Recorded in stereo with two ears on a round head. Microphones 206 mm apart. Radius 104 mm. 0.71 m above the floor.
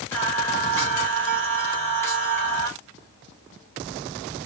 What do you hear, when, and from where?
0.1 s singing: 10° left (ahead or behind), 1.2 m